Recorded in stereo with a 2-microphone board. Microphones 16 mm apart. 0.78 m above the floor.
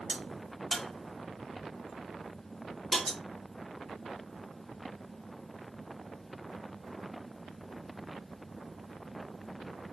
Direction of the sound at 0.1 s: 15° left (ahead or behind).